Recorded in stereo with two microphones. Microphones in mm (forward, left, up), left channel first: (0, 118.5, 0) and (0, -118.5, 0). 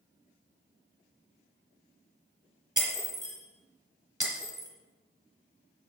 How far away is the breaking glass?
About 2.5 m.